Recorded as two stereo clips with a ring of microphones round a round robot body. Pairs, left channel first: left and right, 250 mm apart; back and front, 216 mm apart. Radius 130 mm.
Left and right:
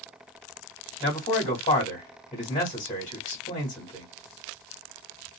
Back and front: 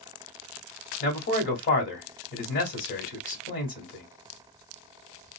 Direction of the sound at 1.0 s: 155° left.